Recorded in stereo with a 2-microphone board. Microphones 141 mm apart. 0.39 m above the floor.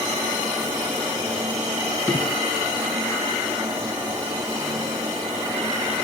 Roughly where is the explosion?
Centre.